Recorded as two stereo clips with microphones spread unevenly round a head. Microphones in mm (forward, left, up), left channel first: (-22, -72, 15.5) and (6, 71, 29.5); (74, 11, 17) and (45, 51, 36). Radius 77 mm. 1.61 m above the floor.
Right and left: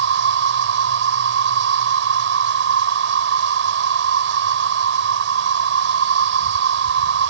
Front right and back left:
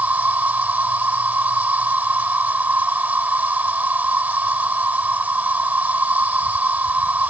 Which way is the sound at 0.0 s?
75° left.